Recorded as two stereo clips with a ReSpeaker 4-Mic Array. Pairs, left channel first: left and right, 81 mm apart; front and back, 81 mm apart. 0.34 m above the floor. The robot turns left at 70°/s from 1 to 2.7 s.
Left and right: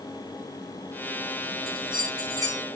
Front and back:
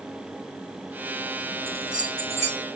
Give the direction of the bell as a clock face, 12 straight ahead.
3 o'clock.